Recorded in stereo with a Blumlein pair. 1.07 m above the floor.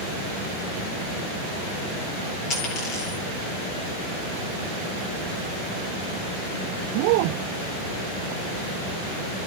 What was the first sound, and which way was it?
A dropped coin, 30° left.